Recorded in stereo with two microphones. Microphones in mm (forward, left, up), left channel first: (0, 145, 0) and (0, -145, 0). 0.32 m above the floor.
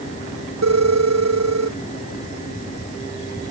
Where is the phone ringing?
60° right (ahead or behind).